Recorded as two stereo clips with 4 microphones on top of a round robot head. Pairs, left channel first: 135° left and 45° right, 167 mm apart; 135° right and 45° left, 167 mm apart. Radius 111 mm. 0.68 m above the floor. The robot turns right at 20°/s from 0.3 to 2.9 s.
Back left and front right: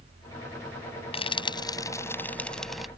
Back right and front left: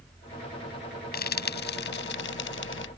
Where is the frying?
165° right; by 2.9 s 130° right.